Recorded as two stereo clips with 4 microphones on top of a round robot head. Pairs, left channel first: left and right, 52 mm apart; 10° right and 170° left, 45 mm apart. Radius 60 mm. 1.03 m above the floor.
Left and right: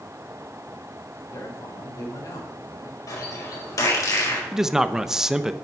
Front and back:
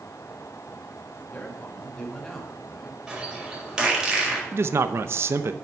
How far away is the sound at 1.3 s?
About 2.5 m.